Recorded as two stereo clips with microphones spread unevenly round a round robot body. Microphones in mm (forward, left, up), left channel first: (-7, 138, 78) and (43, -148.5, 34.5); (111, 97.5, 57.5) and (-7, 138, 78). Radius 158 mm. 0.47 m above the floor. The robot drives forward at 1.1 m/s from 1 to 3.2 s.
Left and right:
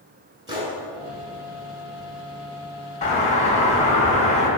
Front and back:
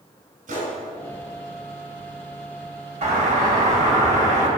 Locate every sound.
0.5 s a gunshot: 155° right, 2.5 m
3.0 s a doorbell: 165° left, 2.5 m; by 4.5 s 170° left, 2.5 m